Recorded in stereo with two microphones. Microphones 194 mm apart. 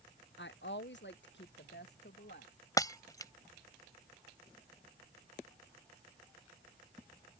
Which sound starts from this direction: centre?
Breaking glass, at 2.8 s.